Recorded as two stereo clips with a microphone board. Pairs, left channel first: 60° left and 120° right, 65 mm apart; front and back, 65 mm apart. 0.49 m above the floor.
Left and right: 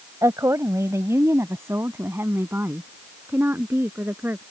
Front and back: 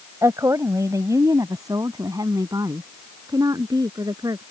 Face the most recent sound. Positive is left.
turn(degrees=180)